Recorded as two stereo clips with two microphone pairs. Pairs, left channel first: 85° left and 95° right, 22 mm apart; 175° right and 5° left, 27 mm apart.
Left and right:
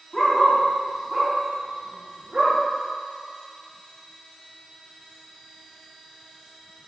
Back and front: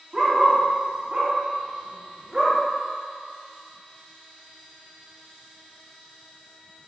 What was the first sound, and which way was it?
A dog barking, 50° left.